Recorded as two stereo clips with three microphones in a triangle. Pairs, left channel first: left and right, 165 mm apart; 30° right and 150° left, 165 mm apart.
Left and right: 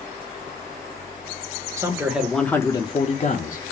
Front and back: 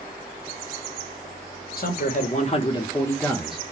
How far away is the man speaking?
About 0.8 m.